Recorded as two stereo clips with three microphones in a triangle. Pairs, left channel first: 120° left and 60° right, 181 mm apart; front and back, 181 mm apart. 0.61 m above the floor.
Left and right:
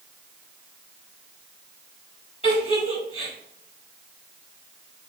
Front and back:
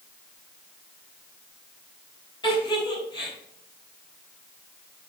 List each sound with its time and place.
2.4 s a giggle: 65° left, 4 m